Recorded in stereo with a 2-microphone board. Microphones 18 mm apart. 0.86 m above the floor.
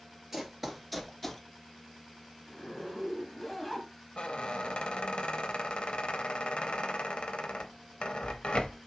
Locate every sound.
0.3 s running footsteps: 15° right (ahead or behind), 1.0 m; by 1.4 s 10° left (ahead or behind), 0.8 m
2.5 s a zipper: 5° left (ahead or behind), 1.2 m
4.2 s a squeak: 70° left (ahead or behind), 0.6 m